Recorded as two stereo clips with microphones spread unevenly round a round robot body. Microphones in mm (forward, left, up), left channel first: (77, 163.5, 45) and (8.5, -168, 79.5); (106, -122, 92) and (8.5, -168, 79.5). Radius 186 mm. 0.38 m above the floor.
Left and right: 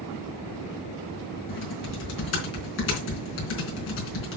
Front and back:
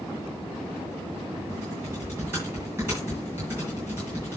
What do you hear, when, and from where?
1.5 s typing on a keyboard: 130° left, 3.5 m